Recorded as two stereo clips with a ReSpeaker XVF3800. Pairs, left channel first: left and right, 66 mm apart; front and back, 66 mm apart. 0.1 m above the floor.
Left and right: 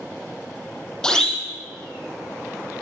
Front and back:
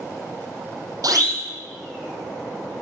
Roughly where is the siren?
Behind.